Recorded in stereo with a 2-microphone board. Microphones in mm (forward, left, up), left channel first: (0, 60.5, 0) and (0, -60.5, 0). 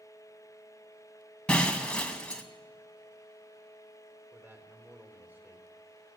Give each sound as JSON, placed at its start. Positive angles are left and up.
{"t": 1.5, "sound": "breaking glass", "side_deg": 10, "distance_m": 2.0}
{"t": 4.3, "sound": "a man speaking", "side_deg": -15, "distance_m": 3.5}